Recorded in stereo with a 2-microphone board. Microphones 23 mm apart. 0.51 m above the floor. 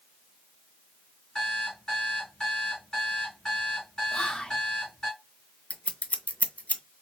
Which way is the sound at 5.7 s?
70° left (ahead or behind).